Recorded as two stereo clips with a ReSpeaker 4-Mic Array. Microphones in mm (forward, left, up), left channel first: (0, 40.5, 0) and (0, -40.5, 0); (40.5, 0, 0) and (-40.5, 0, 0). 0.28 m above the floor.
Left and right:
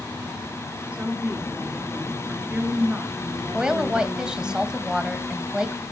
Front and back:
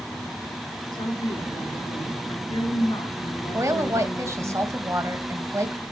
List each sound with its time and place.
0.9 s a woman speaking: 15° right, 4 m
3.5 s a woman speaking: 165° right, 1.8 m